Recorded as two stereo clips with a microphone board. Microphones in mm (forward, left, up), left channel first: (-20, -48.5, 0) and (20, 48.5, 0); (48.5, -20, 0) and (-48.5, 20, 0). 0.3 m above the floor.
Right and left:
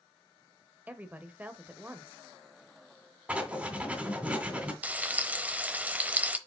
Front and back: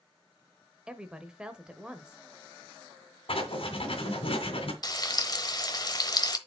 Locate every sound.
0.9 s a woman speaking: 95° left, 0.9 m
3.3 s writing: 5° right, 2 m
4.8 s frying: straight ahead, 0.8 m